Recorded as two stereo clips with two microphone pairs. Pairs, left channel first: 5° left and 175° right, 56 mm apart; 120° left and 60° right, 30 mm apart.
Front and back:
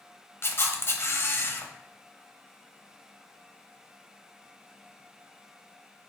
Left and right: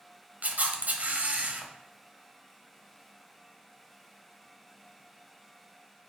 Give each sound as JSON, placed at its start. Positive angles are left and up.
{"t": 0.4, "sound": "a camera shutter", "azimuth_deg": -35, "distance_m": 0.6}